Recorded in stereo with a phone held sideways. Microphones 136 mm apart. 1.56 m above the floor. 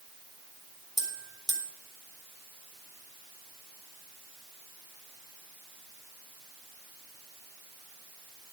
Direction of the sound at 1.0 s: 30° right (ahead or behind).